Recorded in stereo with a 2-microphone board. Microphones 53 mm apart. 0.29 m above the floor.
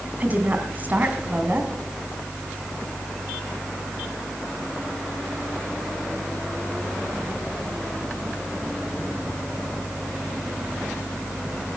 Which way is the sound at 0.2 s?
30° right (ahead or behind).